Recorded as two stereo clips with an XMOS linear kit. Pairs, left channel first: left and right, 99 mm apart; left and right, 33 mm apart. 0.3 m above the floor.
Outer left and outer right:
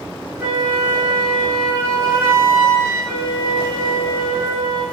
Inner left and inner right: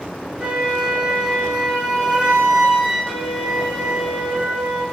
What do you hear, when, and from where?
0.4 s a flute: 30° right (ahead or behind), 1.2 m